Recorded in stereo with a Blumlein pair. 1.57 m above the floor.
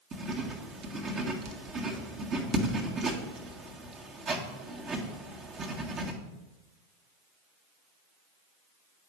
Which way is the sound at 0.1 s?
25° right.